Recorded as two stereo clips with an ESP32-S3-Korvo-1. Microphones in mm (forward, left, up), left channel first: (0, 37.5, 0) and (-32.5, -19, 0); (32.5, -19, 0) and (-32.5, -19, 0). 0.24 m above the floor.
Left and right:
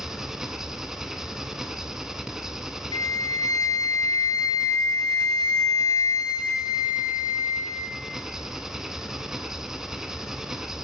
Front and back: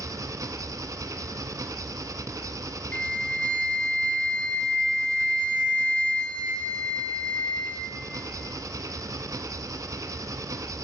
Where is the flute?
70° left, 0.8 m.